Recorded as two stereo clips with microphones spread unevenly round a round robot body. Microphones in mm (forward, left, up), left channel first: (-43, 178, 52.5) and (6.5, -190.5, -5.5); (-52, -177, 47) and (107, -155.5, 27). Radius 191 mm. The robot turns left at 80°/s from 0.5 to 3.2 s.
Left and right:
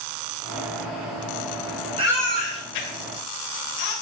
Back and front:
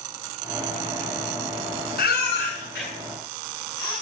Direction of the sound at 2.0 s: 155° right.